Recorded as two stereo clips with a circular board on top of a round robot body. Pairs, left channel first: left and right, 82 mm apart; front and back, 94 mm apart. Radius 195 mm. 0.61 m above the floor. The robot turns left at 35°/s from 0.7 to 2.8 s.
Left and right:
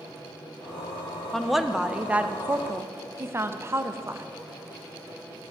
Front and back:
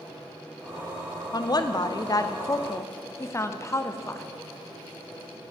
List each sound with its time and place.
1.3 s a woman speaking: 5° left, 0.7 m; by 4.3 s 45° right, 0.7 m